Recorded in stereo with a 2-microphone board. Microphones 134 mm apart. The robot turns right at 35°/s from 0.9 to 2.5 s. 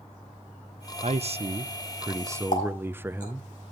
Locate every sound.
1.0 s a man speaking: 70° right, 0.6 m; by 3.5 s 20° right, 0.6 m
2.5 s a running tap: 75° left (ahead or behind), 4.5 m